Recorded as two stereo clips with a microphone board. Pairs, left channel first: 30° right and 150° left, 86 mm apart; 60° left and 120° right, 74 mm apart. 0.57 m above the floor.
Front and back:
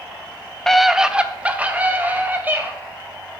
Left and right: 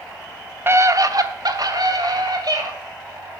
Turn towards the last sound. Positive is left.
turn(degrees=-140)